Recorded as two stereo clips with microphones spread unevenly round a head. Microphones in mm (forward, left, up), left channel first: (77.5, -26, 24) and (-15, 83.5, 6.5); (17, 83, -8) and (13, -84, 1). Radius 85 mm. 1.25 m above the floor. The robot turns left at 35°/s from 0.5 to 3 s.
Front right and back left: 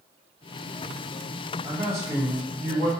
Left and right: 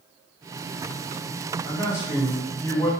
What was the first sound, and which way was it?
A man speaking, 155° right.